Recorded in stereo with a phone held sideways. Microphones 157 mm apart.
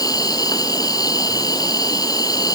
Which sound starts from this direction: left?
An insect, at 0.0 s.